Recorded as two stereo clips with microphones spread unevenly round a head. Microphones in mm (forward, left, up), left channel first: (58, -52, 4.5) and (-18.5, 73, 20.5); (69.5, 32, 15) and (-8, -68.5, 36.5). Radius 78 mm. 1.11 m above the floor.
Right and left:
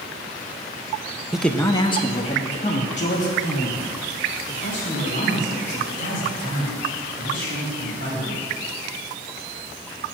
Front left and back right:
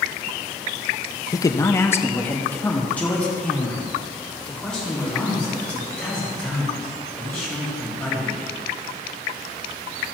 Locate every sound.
1.3 s a man speaking: 35° left, 0.5 m; by 8.4 s 30° right, 6.5 m